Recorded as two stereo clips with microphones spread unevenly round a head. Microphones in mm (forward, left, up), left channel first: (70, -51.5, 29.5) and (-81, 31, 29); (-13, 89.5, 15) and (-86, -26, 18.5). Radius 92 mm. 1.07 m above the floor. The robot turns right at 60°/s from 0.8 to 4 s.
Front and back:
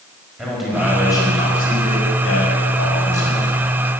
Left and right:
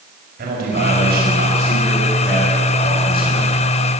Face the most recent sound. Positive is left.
turn(degrees=70)